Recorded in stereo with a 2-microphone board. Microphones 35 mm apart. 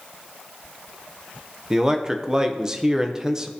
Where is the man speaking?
15° right (ahead or behind), 0.7 m.